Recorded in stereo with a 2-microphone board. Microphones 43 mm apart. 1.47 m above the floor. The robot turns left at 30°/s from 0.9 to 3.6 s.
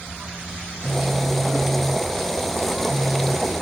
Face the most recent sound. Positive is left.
turn(degrees=-155)